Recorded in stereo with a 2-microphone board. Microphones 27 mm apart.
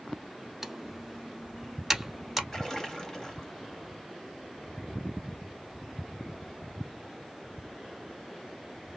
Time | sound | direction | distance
0.6 | typing on a keyboard | 10° right (ahead or behind) | 0.7 m
2.5 | a splash | 25° left (ahead or behind) | 0.9 m